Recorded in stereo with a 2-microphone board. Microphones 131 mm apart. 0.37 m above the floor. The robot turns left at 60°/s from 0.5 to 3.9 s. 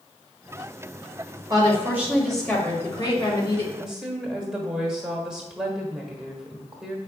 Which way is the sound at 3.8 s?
Centre (ahead or behind).